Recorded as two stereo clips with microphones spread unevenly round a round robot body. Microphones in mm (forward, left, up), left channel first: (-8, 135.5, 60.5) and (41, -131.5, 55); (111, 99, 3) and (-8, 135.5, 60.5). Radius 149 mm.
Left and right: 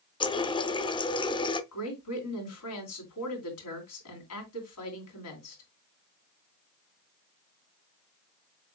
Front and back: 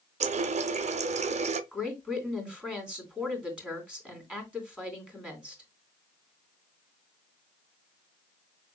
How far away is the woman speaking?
About 3 m.